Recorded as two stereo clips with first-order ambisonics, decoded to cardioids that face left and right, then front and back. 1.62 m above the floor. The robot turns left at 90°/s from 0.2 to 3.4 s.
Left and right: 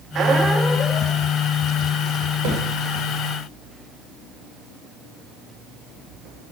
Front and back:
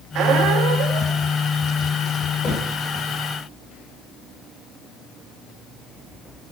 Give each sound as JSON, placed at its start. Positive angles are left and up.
{"t": 0.1, "sound": "a squeak", "azimuth_deg": -145, "distance_m": 1.6}
{"t": 2.4, "sound": "a thud", "azimuth_deg": -65, "distance_m": 8.0}